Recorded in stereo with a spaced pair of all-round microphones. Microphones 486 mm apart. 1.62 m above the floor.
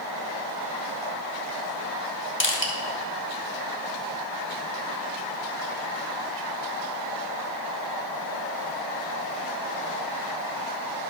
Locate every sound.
2.4 s crushing: 25° left (ahead or behind), 1.6 m